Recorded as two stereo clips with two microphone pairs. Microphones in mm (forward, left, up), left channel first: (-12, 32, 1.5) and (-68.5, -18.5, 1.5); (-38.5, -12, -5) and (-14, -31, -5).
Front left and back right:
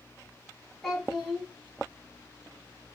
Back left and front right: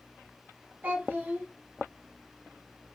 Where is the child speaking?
50° right, 1.9 m.